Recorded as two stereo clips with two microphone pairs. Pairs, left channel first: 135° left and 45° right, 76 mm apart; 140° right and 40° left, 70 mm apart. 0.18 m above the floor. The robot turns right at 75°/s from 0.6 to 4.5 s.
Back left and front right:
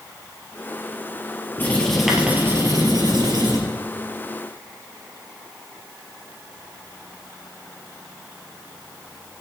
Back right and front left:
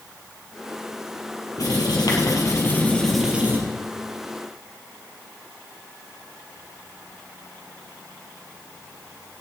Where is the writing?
170° right, 3 m; by 3.6 s 20° right, 3 m.